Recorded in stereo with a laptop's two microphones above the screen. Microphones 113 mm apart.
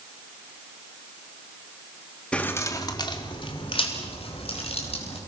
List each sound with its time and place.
2.3 s keys jangling: 10° left (ahead or behind), 1.3 m; by 5.2 s 65° left (ahead or behind), 5 m